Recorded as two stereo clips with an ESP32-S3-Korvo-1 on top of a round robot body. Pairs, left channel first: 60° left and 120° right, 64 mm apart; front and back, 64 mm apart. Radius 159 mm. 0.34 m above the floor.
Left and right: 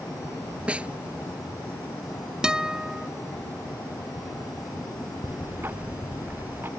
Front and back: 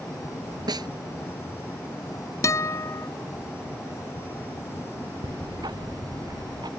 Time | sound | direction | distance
0.7 | a snare drum | 170° left | ?
2.4 | a guitar | 40° right | ?
5.2 | ticking | straight behind | ?